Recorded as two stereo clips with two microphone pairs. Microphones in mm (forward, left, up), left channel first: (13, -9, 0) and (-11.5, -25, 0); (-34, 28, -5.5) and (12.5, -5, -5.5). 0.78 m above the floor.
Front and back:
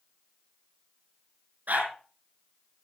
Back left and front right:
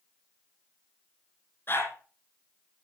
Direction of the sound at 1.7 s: 170° right.